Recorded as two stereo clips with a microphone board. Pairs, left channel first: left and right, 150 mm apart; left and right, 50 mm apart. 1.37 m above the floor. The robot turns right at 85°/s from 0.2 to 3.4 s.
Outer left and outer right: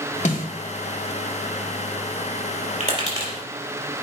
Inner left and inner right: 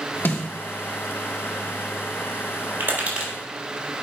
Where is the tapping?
55° right (ahead or behind), 4.5 m; by 3.3 s 10° right (ahead or behind), 4.5 m.